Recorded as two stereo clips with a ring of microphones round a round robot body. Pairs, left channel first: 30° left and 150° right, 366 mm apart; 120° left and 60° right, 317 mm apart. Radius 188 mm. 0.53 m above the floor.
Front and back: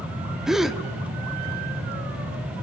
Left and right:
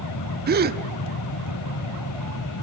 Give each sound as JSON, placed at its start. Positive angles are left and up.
{"t": 0.5, "sound": "a gasp", "azimuth_deg": -60, "distance_m": 1.2}